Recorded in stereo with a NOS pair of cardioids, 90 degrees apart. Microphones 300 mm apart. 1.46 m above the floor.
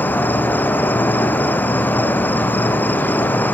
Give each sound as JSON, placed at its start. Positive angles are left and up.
{"t": 0.0, "sound": "an insect", "azimuth_deg": 5, "distance_m": 0.7}